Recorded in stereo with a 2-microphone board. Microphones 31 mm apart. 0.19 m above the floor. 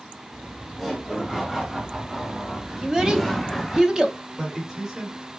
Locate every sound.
0.3 s laughter: 5° right (ahead or behind), 1.7 m; by 3.8 s 5° left (ahead or behind), 1.2 m
2.8 s a child speaking: 20° right (ahead or behind), 0.6 m
4.4 s a man speaking: 20° right (ahead or behind), 1.6 m